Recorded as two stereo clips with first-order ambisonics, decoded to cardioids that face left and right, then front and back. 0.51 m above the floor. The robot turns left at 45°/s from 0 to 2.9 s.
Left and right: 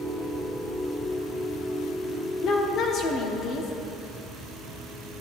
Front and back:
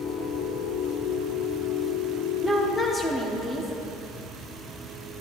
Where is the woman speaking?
100° left, 0.8 m; by 3.7 s 75° left, 0.8 m.